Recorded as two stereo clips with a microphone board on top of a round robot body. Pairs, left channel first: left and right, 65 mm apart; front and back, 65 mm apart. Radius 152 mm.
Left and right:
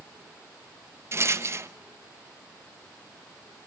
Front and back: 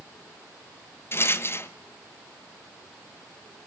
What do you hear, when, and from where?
1.1 s a rattle: 50° right, 1.3 m